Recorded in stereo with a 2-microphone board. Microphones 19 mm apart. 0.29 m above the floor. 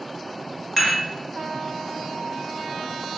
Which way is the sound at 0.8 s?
5° left (ahead or behind).